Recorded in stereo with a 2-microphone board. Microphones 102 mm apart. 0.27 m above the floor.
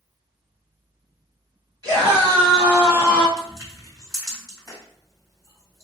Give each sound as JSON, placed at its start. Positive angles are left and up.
{"t": 1.8, "sound": "a scream", "side_deg": -45, "distance_m": 2.0}
{"t": 3.4, "sound": "crushing", "side_deg": -35, "distance_m": 2.0}